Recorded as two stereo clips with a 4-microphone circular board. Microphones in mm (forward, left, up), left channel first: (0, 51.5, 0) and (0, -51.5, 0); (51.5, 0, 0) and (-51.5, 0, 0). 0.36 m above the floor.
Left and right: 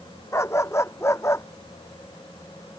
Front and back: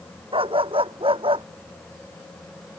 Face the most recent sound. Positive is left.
turn(degrees=155)